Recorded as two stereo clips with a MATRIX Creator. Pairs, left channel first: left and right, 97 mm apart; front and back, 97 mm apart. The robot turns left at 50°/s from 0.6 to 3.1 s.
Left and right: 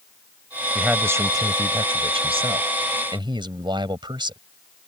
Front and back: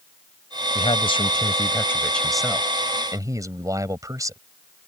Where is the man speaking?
10° right; by 4.4 s 125° right.